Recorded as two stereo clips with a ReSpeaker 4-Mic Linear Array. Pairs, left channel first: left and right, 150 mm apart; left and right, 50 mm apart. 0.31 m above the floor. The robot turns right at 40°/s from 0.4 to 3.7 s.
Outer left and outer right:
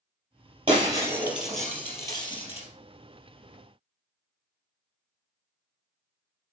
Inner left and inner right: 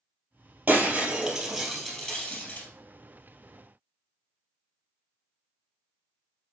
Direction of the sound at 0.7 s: 35° right.